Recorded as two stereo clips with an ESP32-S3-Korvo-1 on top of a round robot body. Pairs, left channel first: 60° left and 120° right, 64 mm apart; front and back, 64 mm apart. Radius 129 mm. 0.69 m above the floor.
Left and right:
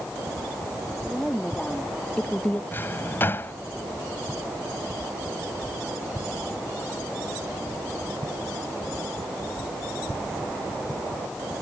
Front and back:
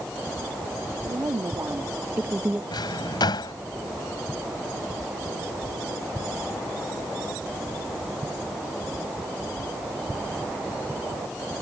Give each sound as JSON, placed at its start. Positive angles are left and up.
{"t": 1.0, "sound": "a woman speaking", "azimuth_deg": 145}
{"t": 2.7, "sound": "a drawer", "azimuth_deg": 0}